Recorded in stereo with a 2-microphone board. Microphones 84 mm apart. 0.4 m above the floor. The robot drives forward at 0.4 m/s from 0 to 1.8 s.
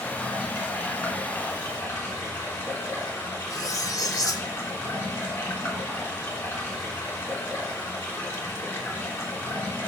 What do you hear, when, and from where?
0.0 s running water: 20° left (ahead or behind), 3.5 m; by 9.9 s 25° left (ahead or behind), 3 m
3.5 s cutlery clinking: 45° left (ahead or behind), 0.8 m